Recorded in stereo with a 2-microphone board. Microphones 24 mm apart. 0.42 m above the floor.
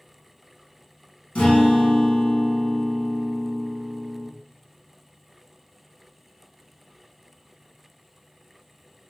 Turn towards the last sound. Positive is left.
turn(degrees=75)  # may be behind; listen again after turning